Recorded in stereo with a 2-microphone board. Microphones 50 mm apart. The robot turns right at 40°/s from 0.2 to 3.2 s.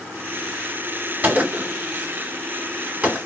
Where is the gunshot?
30° right (ahead or behind), 1.1 m; by 3.2 s 20° right (ahead or behind), 1.1 m.